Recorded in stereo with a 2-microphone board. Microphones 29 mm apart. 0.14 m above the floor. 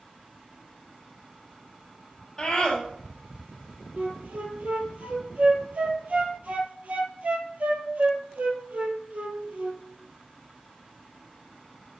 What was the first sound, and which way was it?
A scream, 10° left (ahead or behind).